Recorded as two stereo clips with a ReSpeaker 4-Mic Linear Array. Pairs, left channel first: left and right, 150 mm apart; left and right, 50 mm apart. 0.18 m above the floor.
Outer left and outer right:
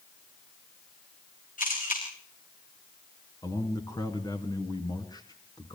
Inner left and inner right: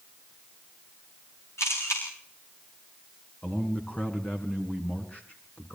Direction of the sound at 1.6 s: 65° left (ahead or behind).